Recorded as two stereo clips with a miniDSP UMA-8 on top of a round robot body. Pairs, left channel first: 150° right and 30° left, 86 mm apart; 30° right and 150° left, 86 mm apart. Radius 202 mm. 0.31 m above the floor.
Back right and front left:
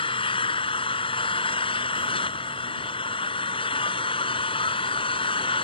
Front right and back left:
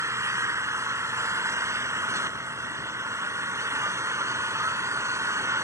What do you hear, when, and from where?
0.0 s an engine running: 155° right